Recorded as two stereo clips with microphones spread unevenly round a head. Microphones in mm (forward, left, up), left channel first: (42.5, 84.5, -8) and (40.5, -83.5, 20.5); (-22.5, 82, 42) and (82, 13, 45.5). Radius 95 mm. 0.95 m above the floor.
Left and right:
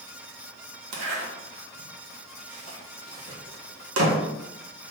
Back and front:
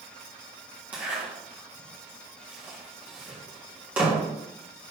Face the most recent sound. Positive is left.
turn(degrees=-115)